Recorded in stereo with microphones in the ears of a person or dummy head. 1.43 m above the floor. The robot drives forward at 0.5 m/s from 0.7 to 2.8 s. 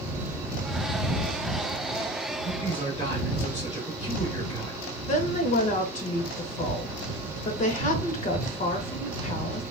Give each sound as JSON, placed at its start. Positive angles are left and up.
{"t": 2.4, "sound": "a man speaking", "side_deg": 45, "distance_m": 1.7}
{"t": 5.1, "sound": "a woman speaking", "side_deg": 45, "distance_m": 0.6}